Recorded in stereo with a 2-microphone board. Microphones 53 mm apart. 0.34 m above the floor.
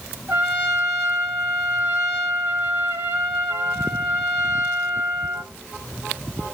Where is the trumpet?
45° right (ahead or behind), 2.5 m.